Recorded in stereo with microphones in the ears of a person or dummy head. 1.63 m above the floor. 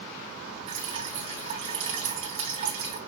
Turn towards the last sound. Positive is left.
turn(degrees=-30)  # may be behind; listen again after turning